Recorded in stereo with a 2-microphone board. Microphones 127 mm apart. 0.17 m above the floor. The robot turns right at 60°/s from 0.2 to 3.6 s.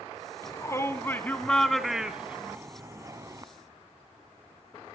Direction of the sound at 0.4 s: 25° left (ahead or behind).